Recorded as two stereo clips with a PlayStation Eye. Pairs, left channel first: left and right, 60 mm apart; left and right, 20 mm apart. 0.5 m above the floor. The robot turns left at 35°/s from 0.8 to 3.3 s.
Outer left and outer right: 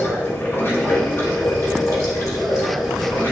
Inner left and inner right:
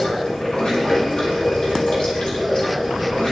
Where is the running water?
135° left, 2.0 m; by 3.3 s 50° left, 2.0 m.